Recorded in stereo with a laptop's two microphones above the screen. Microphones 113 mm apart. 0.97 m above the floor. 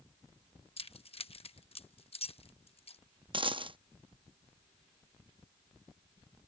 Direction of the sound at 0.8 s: 60° left (ahead or behind).